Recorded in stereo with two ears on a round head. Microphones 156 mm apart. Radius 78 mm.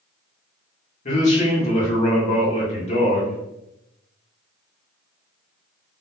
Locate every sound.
1.1 s a man speaking: 40° left (ahead or behind), 1.1 m